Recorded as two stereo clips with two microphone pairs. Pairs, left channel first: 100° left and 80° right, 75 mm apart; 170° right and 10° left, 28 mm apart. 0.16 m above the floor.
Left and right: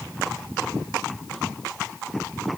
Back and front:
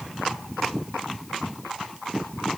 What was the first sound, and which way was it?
Only background noise.